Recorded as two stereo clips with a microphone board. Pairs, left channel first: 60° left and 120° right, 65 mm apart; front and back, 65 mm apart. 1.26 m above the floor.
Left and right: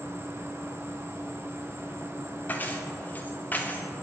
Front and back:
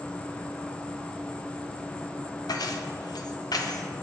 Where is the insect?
75° right, 0.8 m.